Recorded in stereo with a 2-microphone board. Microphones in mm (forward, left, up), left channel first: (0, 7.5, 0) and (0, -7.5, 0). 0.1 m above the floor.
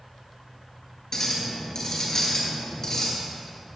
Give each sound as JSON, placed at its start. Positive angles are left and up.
{"t": 1.1, "sound": "a clink", "side_deg": 30, "distance_m": 1.4}